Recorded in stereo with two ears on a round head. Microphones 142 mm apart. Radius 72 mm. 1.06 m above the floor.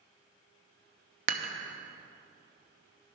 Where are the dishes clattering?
45° right (ahead or behind), 0.8 m.